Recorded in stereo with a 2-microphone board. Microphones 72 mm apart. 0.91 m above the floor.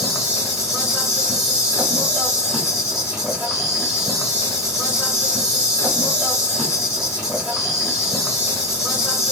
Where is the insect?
10° right (ahead or behind), 1.2 m.